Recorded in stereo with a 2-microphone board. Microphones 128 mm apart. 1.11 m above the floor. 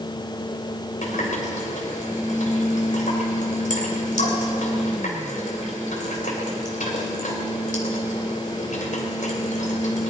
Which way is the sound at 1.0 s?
85° left.